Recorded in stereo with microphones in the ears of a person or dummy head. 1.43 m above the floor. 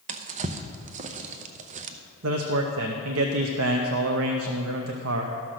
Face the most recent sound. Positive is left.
turn(degrees=-70)  # may be behind; listen again after turning